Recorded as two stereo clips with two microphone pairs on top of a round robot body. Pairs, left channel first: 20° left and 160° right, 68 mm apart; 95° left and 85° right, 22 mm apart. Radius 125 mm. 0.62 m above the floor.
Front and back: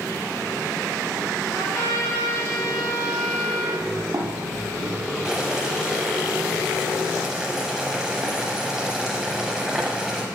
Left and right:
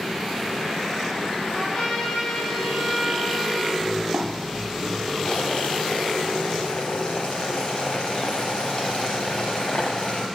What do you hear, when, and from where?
1.5 s a trumpet: 75° left, 4 m
3.8 s footsteps: 105° right, 2.5 m; by 5.2 s 160° right, 1.7 m
5.2 s boiling: 130° left, 0.5 m